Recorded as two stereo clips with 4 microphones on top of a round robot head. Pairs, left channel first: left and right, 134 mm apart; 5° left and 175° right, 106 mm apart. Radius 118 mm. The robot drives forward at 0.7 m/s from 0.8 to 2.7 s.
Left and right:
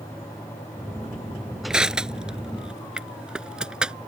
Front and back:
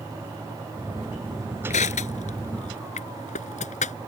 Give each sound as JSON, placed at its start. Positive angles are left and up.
{"t": 1.7, "sound": "crushing", "azimuth_deg": -5}